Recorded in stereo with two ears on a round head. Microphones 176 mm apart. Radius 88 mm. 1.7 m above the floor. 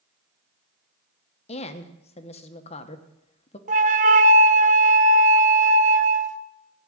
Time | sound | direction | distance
1.5 | a woman speaking | 30° left (ahead or behind) | 1.1 m
3.7 | a flute | 40° right (ahead or behind) | 0.7 m